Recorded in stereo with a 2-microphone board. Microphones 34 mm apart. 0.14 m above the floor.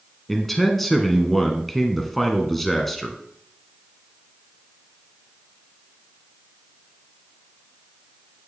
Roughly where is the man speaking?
Centre.